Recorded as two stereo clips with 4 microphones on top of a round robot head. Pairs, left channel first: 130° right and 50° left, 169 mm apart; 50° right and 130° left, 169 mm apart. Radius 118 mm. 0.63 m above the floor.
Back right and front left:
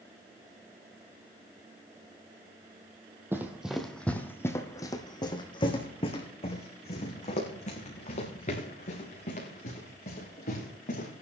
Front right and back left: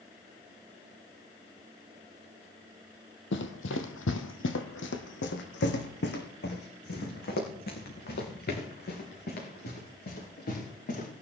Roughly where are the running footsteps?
Ahead right.